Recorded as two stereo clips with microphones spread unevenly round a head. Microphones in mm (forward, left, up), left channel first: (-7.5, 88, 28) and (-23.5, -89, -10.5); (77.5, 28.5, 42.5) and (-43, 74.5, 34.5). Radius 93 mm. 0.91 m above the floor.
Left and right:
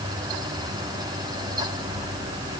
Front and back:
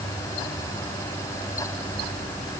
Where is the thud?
I don't hear a thud.